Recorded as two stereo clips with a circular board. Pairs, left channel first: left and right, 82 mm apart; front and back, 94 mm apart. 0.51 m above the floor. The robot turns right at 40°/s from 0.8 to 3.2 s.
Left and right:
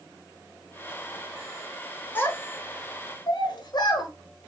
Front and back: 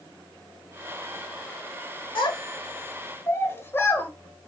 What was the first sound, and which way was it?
A child speaking, 25° left.